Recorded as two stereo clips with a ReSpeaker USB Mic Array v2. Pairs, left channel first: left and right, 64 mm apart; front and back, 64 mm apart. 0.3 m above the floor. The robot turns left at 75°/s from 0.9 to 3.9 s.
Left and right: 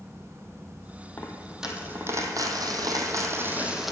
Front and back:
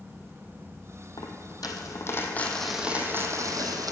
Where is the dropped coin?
25° left, 1.4 m; by 3.9 s straight behind, 1.4 m.